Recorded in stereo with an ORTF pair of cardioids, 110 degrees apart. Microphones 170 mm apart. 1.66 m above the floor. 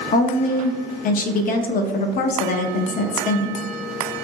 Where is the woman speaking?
55° left, 0.5 m.